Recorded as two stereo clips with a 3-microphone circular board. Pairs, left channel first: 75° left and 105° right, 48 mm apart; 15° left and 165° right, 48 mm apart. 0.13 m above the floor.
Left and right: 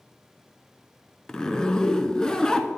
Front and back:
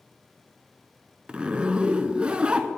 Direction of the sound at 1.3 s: 140° left.